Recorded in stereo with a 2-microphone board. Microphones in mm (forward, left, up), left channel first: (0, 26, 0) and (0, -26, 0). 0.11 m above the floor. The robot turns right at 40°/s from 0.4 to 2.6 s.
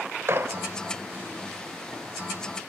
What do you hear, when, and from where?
0.3 s a gunshot: 50° right (ahead or behind), 0.8 m; by 0.7 s 45° right (ahead or behind), 0.8 m